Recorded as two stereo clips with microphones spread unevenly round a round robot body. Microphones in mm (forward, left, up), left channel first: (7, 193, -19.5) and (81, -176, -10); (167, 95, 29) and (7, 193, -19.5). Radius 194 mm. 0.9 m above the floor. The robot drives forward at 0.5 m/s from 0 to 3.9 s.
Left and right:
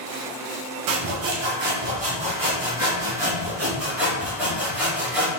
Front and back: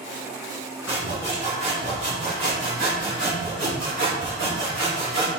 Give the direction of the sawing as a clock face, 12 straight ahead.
4 o'clock.